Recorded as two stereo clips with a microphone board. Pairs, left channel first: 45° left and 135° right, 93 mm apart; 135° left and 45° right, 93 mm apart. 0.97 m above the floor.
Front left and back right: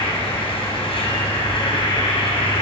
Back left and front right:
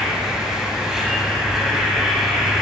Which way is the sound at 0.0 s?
40° left.